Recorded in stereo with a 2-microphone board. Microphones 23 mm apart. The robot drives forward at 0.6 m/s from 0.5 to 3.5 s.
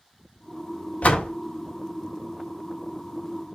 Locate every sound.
1.0 s a door slam: 75° left (ahead or behind), 1.2 m; by 1.3 s 65° left (ahead or behind), 1.2 m